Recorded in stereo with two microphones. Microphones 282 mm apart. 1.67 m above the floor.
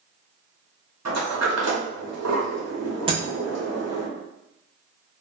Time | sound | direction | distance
1.1 | a sliding door | 60° right (ahead or behind) | 0.8 m
3.1 | breaking glass | 20° right (ahead or behind) | 0.7 m